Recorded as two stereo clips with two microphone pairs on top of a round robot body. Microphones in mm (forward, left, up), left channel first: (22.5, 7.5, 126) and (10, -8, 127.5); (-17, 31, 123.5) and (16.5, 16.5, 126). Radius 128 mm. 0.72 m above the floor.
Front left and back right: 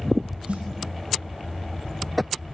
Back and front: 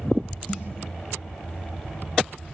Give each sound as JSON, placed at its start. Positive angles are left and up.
{"t": 0.5, "sound": "a snare drum", "azimuth_deg": -150, "distance_m": 9.0}